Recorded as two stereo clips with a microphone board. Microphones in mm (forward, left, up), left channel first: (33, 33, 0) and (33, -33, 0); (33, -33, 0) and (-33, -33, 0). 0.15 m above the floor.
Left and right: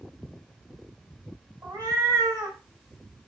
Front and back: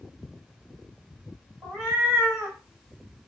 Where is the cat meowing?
115° right, 1.9 m.